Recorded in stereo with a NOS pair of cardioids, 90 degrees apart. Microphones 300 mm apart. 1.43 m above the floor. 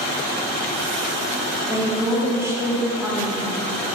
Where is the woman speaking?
10° right, 0.6 m.